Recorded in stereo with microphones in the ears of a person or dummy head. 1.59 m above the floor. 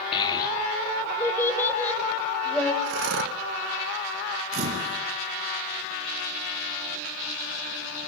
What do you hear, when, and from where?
0.1 s a child speaking: 30° left (ahead or behind), 2.5 m; by 2.7 s 5° left (ahead or behind), 5.5 m
2.8 s breathing: 60° right (ahead or behind), 1.0 m
4.5 s a camera shutter: 45° right (ahead or behind), 3.5 m